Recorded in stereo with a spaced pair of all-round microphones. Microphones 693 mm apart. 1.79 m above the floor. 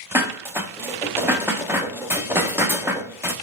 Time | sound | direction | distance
0.1 | dishes clattering | 5° right (ahead or behind) | 0.9 m